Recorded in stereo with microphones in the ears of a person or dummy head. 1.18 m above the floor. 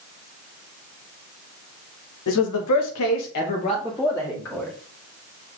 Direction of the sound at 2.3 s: 65° left (ahead or behind).